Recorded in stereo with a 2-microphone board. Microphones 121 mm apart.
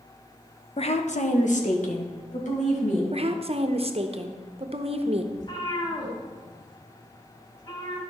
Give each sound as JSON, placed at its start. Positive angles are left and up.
{"t": 0.8, "sound": "a woman speaking", "side_deg": 50, "distance_m": 0.8}
{"t": 3.1, "sound": "a woman speaking", "side_deg": -50, "distance_m": 0.8}
{"t": 5.3, "sound": "a cat meowing", "side_deg": 35, "distance_m": 4.0}